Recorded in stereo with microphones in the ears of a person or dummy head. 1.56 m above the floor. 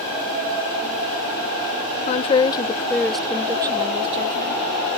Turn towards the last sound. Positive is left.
turn(degrees=-50)  # may be behind; listen again after turning